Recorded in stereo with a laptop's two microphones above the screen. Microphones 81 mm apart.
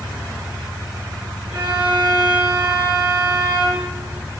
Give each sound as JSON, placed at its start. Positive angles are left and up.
{"t": 1.5, "sound": "a violin", "side_deg": -60, "distance_m": 10.0}